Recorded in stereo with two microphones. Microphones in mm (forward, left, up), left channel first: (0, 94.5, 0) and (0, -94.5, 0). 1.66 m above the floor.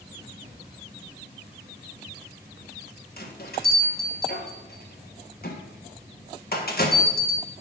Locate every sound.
0.4 s a cupboard door: 45° right (ahead or behind), 2 m
3.2 s a bell: 55° left (ahead or behind), 1.2 m